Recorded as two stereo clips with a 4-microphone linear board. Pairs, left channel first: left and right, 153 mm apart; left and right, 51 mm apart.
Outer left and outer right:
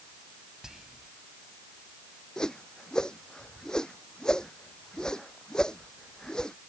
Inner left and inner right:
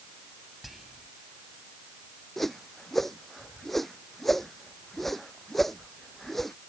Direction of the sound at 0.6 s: 5° right (ahead or behind).